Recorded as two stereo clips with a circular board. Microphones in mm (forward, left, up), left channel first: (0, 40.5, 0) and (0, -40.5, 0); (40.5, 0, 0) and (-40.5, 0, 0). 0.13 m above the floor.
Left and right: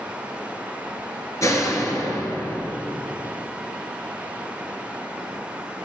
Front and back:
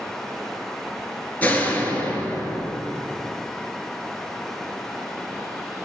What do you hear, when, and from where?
1.4 s a door slam: 60° left, 1.7 m